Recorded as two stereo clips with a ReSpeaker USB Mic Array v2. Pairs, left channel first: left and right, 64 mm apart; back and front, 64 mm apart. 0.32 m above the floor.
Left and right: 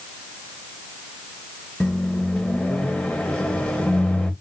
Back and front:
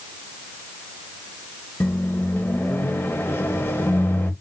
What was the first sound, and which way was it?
A microwave, 155° left.